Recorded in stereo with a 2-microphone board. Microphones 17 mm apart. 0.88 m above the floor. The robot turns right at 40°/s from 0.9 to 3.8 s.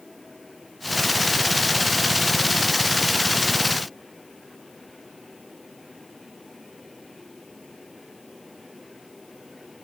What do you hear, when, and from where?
Only background noise.